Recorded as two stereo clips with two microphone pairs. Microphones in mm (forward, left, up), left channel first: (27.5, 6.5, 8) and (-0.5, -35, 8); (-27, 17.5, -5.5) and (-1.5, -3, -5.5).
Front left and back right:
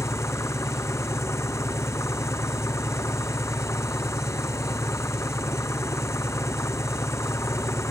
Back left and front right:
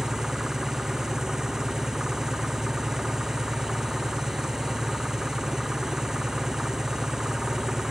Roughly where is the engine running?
Ahead left.